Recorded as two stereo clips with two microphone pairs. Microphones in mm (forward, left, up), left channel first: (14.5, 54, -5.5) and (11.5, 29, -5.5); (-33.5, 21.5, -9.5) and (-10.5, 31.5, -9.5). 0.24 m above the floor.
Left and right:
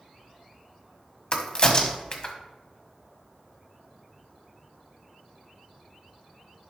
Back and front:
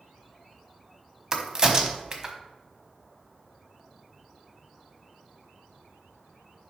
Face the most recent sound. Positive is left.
turn(degrees=75)